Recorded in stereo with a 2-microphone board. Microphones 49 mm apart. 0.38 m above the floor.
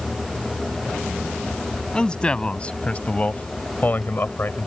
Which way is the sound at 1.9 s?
20° left (ahead or behind).